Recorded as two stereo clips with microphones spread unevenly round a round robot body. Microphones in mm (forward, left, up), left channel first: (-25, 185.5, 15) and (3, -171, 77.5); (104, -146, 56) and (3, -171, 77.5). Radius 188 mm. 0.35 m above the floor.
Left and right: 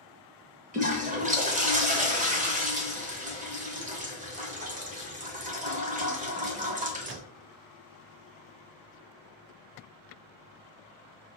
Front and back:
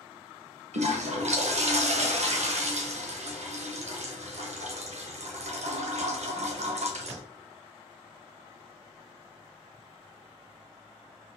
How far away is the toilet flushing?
About 0.9 m.